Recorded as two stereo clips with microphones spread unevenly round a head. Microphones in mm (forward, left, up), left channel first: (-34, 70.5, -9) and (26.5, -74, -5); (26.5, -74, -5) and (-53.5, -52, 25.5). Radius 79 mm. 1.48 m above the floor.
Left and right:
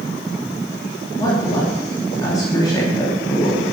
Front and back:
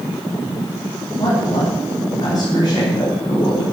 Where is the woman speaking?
45° left, 3.5 m.